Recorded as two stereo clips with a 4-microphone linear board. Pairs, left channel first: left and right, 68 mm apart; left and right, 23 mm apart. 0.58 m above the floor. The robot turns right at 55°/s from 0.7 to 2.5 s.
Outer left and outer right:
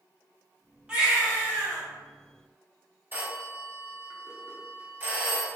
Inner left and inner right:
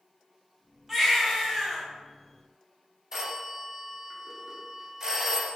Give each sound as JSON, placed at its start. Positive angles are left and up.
{"t": 0.9, "sound": "a baby crying", "azimuth_deg": -15, "distance_m": 1.8}
{"t": 3.1, "sound": "a phone ringing", "side_deg": -30, "distance_m": 0.8}